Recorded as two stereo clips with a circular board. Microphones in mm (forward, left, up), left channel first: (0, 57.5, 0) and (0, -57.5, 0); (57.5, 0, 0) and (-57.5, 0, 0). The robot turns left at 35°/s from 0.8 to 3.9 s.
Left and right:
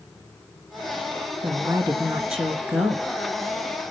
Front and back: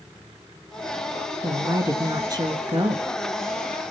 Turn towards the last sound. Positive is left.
turn(degrees=140)